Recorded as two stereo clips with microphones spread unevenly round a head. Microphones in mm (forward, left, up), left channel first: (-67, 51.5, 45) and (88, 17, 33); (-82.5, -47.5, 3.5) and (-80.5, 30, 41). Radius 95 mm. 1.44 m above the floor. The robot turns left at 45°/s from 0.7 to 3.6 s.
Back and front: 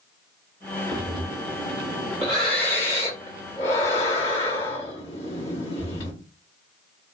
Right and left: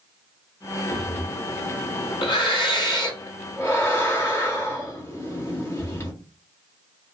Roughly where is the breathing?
Ahead right.